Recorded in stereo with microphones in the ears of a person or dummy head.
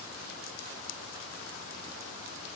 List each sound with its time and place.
Only background noise.